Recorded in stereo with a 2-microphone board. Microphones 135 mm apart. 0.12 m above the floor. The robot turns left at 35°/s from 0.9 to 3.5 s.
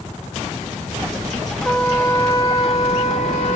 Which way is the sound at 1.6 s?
Straight behind.